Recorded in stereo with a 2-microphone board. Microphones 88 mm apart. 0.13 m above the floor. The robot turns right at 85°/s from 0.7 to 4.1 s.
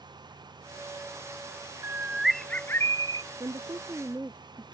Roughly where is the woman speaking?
Right.